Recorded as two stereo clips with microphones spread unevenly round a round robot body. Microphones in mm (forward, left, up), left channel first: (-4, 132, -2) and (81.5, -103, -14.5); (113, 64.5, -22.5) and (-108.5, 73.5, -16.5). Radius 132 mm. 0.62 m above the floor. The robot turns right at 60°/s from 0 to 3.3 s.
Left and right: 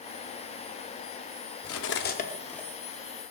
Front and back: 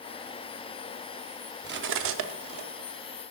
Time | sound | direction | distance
1.6 | cutlery clinking | 140° left | 0.8 m